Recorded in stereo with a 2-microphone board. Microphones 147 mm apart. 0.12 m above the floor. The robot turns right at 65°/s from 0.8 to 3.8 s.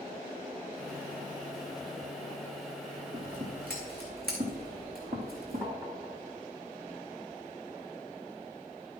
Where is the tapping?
25° right (ahead or behind), 1.5 m.